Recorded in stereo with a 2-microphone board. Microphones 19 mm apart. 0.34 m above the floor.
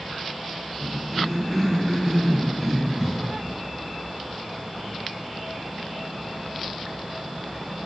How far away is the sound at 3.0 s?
About 4 m.